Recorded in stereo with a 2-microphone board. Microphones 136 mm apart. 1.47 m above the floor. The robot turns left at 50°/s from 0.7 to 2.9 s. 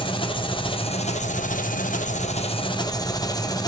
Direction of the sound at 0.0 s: 140° left.